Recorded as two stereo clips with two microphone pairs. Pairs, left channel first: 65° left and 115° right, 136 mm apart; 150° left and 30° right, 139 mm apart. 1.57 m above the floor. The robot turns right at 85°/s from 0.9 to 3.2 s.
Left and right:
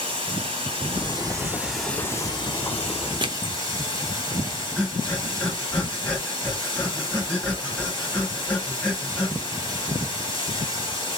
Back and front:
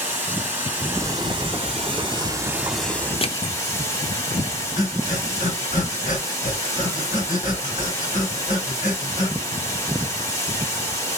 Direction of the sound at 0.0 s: 100° right.